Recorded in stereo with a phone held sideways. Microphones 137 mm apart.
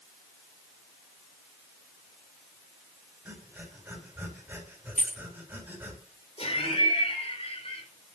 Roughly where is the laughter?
Left.